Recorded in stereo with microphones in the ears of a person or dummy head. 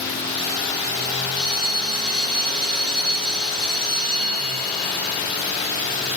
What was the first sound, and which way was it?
A bell, centre (ahead or behind).